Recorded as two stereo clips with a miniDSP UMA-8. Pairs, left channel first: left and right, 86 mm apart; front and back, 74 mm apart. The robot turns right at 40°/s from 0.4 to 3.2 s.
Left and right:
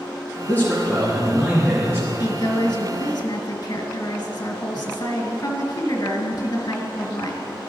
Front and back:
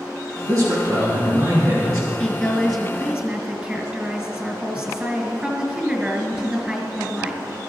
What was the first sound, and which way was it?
A man speaking, 150° left.